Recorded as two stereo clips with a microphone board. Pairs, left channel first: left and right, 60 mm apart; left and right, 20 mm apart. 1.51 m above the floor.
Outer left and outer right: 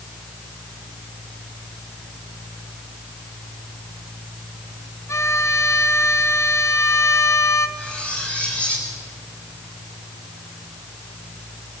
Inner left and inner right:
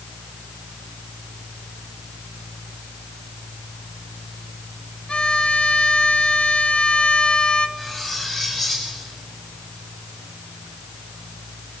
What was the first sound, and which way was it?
A violin, 55° left (ahead or behind).